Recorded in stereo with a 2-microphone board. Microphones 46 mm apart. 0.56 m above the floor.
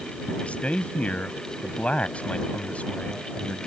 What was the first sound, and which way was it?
A man speaking, 30° left (ahead or behind).